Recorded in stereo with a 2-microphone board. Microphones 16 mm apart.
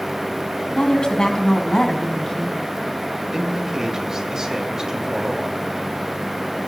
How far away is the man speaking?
About 2.5 m.